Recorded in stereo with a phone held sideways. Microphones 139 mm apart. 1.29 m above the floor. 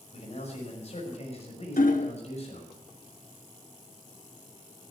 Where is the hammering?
75° left (ahead or behind), 1.3 m.